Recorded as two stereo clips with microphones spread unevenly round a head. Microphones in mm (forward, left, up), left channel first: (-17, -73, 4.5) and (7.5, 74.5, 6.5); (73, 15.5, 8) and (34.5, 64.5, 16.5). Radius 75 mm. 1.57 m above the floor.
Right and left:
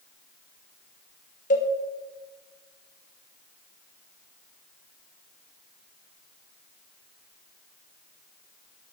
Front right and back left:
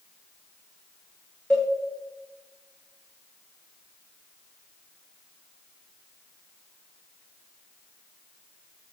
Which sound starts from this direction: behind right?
A cowbell, at 1.5 s.